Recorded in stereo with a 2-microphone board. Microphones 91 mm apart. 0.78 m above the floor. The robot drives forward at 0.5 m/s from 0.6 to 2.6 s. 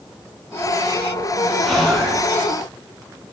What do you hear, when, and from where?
1.6 s whispering: 5° right (ahead or behind), 5 m